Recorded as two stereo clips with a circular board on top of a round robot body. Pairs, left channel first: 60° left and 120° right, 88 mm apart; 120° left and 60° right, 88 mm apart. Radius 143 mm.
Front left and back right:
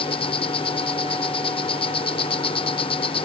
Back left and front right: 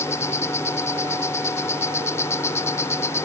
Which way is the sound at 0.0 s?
60° left.